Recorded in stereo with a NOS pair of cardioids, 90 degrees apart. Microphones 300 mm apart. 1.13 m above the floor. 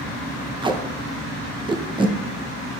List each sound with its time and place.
0.6 s tape being pulled: 15° right, 0.6 m